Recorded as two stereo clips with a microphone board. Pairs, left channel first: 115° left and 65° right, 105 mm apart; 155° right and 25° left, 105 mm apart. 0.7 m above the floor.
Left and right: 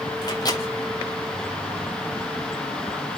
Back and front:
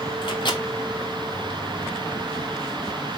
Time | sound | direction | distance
0.2 | a microwave | 160° left | 2.5 m